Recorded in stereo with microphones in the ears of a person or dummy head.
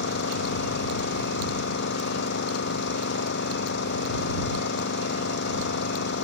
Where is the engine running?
60° left (ahead or behind).